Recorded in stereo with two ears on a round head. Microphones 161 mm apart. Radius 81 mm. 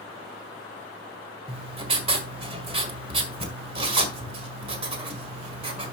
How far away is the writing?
About 1.8 m.